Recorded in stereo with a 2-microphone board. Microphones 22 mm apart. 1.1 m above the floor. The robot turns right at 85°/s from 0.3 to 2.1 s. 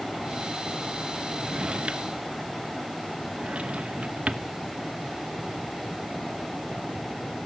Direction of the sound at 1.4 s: 25° right (ahead or behind).